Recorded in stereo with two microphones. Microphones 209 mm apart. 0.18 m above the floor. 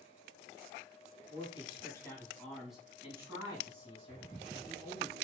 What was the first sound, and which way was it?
A man speaking, 30° left (ahead or behind).